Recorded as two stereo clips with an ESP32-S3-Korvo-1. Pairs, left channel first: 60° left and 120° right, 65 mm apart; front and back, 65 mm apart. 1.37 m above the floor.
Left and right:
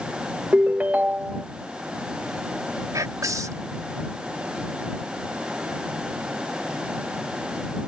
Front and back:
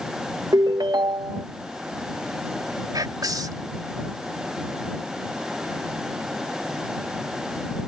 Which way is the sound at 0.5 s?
170° left.